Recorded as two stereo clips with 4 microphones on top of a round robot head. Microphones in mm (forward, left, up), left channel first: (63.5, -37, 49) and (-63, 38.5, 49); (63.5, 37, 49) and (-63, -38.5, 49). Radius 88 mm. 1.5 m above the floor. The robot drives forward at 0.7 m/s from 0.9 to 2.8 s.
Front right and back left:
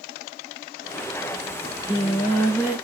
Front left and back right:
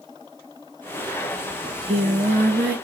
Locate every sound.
1.6 s singing: 85° right, 0.9 m; by 2.8 s 135° right, 1.1 m